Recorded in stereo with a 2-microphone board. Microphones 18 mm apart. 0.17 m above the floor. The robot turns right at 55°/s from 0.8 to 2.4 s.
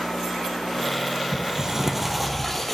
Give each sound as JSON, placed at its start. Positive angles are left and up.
{"t": 1.3, "sound": "a sliding door", "azimuth_deg": -50, "distance_m": 2.0}